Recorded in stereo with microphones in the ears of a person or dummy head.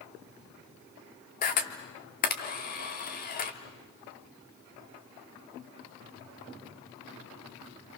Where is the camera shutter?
40° left (ahead or behind), 1.8 m.